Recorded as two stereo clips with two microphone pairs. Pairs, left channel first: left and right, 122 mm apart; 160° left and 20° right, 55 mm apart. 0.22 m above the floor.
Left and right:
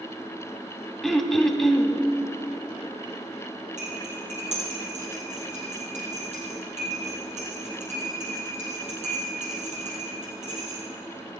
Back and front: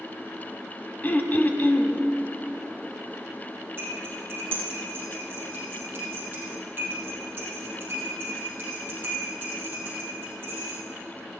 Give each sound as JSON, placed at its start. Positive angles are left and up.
{"t": 1.0, "sound": "throat clearing", "azimuth_deg": 175, "distance_m": 0.9}
{"t": 3.8, "sound": "cutlery clinking", "azimuth_deg": -75, "distance_m": 4.0}